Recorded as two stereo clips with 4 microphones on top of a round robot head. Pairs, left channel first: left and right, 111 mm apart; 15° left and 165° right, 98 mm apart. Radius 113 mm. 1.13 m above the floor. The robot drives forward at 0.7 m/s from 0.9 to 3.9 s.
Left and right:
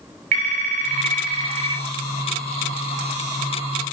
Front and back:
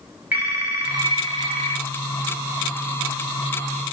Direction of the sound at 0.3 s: 90° right.